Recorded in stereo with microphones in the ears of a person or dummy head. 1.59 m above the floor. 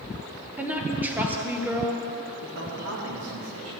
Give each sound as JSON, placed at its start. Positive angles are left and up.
{"t": 0.6, "sound": "a woman speaking", "side_deg": -10, "distance_m": 1.4}
{"t": 2.4, "sound": "a man speaking", "side_deg": -85, "distance_m": 2.5}